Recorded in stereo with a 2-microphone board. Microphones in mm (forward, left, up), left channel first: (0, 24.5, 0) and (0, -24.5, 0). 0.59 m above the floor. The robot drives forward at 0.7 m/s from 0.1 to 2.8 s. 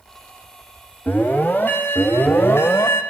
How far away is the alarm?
About 3 m.